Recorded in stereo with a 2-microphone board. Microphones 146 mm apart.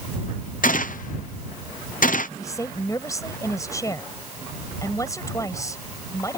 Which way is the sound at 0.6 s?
65° left (ahead or behind).